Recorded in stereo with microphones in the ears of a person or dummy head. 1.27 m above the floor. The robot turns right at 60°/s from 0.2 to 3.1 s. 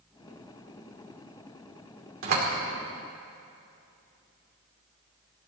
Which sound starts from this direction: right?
A door slam, at 2.2 s.